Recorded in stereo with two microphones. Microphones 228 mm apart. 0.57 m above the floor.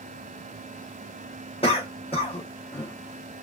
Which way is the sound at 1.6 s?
25° left (ahead or behind).